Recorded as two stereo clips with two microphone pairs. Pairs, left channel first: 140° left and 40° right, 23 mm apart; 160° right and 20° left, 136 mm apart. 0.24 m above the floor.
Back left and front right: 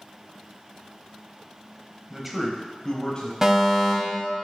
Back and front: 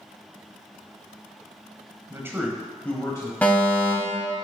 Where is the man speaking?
Straight ahead, 1.0 m; by 3.3 s 160° left, 1.2 m.